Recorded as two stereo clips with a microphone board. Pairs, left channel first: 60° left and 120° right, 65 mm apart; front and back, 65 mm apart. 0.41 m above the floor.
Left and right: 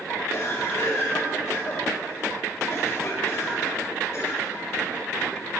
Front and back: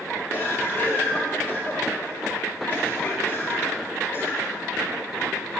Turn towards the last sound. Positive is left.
turn(degrees=40)